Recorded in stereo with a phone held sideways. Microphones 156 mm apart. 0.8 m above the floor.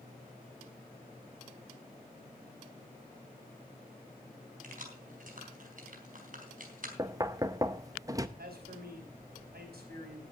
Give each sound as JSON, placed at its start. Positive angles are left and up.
{"t": 4.6, "sound": "keys jangling", "side_deg": -60, "distance_m": 3.5}
{"t": 7.0, "sound": "knocking", "side_deg": -20, "distance_m": 0.7}
{"t": 8.4, "sound": "a man speaking", "side_deg": -85, "distance_m": 5.0}